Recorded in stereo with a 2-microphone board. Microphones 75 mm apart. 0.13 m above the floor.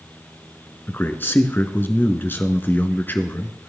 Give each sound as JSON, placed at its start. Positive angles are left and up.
{"t": 0.9, "sound": "a man speaking", "side_deg": 30, "distance_m": 1.2}